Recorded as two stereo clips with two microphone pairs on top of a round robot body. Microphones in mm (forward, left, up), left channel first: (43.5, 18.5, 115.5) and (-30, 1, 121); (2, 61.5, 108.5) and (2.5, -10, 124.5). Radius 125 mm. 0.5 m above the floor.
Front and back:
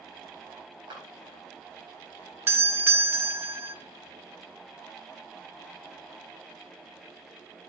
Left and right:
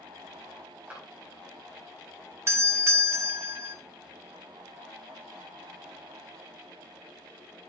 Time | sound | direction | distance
0.9 | a clap | 160° right | 4 m
2.5 | a doorbell | 130° right | 1.2 m